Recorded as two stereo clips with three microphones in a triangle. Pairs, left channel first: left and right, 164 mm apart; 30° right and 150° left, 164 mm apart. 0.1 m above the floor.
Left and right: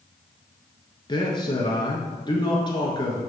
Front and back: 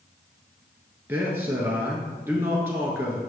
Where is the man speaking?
90° left, 1.1 m.